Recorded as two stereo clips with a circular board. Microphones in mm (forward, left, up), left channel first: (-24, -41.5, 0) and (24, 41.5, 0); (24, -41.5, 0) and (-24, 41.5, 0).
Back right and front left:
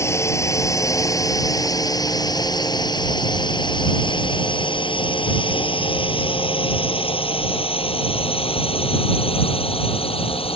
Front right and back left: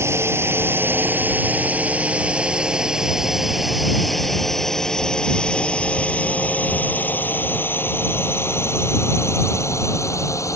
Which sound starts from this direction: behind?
A drone, at 0.0 s.